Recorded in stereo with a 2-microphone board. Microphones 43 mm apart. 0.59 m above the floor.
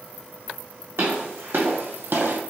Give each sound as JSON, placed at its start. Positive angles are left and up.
{"t": 1.0, "sound": "footsteps", "side_deg": -65, "distance_m": 2.0}